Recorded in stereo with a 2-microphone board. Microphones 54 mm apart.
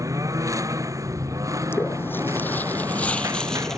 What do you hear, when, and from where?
0.0 s a lawn mower: 85° right; by 3.8 s 80° right
1.7 s footsteps: 45° left (ahead or behind); by 3.8 s 10° left (ahead or behind)